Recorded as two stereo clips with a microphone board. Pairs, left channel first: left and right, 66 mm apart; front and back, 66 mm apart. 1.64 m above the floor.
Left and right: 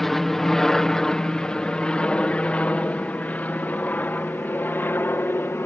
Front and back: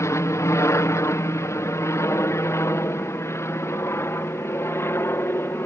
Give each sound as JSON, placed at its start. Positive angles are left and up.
{"t": 0.0, "sound": "an aircraft", "azimuth_deg": 5}